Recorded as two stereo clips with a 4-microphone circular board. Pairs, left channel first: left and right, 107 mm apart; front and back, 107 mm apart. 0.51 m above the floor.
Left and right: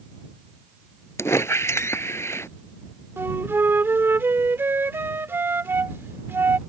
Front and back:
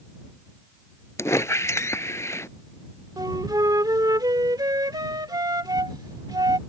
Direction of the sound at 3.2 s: 150° right.